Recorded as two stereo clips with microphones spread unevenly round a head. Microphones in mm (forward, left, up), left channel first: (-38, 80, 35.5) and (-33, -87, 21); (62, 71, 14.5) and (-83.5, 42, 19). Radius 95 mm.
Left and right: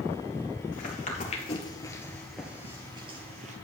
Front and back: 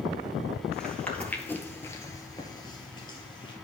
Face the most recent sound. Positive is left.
turn(degrees=-45)